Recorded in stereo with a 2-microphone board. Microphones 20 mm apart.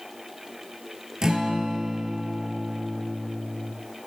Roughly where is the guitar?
Right.